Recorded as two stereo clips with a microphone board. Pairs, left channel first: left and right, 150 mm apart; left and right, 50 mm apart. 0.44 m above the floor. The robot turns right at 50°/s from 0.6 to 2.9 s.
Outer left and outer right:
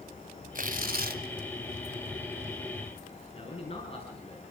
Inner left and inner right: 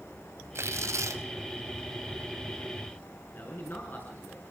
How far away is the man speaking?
About 5 m.